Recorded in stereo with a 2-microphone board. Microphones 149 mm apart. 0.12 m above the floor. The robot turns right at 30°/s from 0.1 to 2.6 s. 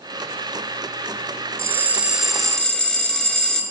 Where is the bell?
25° right, 0.5 m; by 3.6 s 5° left, 0.5 m.